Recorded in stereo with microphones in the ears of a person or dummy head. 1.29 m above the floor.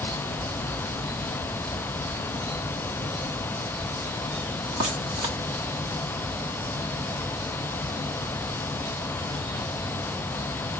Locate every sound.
Only background noise.